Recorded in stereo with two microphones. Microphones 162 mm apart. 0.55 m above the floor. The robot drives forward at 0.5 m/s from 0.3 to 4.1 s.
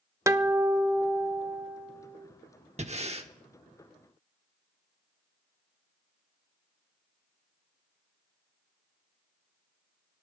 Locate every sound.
0.3 s a guitar: 20° right (ahead or behind), 0.6 m; by 2.2 s 5° right (ahead or behind), 1.5 m
2.8 s breathing: 45° right (ahead or behind), 1.0 m; by 3.3 s 40° right (ahead or behind), 1.1 m